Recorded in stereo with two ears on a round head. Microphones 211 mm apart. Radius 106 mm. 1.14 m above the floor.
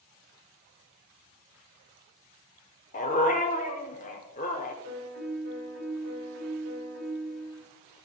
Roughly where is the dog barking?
Left.